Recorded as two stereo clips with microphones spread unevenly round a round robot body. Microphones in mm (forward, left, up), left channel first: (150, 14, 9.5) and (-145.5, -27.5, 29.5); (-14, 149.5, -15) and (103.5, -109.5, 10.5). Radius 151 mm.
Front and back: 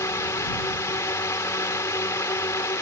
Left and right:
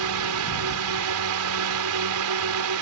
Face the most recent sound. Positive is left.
turn(degrees=-70)